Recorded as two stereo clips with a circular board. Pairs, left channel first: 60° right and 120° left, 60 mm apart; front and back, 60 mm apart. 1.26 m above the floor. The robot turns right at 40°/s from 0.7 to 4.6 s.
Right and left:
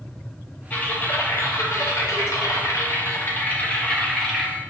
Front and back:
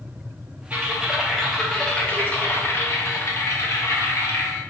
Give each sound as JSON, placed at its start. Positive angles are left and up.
{"t": 0.7, "sound": "typing on a keyboard", "azimuth_deg": -120, "distance_m": 0.5}